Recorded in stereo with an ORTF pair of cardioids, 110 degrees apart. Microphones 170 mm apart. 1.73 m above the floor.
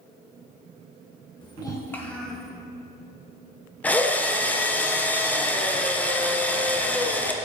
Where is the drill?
10° left, 0.8 m.